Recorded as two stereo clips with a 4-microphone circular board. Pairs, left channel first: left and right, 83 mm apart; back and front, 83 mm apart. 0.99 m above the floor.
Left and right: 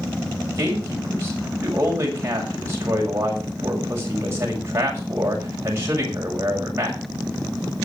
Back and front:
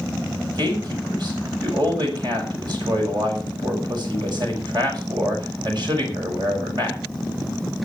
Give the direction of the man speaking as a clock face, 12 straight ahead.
1 o'clock.